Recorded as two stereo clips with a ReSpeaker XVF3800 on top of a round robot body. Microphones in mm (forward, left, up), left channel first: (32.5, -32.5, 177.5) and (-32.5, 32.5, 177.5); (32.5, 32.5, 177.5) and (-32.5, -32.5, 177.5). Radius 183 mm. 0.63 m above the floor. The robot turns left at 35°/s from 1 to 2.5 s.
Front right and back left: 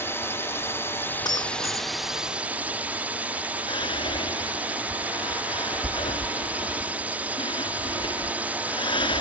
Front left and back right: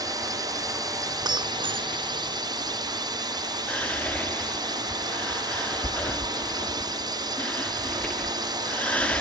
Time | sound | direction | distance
0.0 | a drone | 100° right | ?
1.2 | breaking glass | 90° right | ?
3.7 | whispering | 30° right | ?